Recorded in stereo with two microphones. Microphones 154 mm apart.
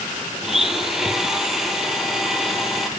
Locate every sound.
0.4 s a blender: 5° right (ahead or behind), 0.8 m